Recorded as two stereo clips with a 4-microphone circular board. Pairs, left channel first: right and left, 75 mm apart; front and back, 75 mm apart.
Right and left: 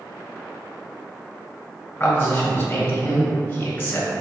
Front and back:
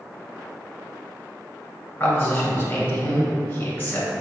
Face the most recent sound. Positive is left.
turn(degrees=-45)